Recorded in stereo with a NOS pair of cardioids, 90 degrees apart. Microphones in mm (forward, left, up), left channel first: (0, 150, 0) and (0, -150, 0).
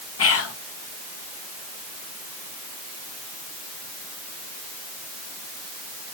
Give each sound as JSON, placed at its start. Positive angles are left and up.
{"t": 0.2, "sound": "whispering", "azimuth_deg": 50, "distance_m": 1.4}